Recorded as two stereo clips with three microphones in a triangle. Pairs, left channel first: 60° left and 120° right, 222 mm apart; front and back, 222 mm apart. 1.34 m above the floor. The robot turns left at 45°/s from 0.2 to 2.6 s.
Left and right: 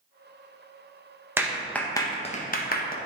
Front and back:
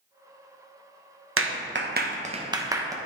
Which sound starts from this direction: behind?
A clap, at 1.4 s.